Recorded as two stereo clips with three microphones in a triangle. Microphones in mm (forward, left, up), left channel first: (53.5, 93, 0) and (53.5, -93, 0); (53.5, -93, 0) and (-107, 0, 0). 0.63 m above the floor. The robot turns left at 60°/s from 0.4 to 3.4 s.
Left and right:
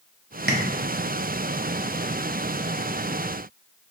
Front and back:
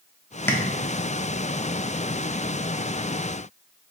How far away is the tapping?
About 0.5 m.